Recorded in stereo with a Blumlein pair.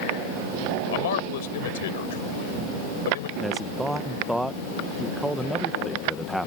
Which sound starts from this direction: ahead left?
A man speaking, at 0.9 s.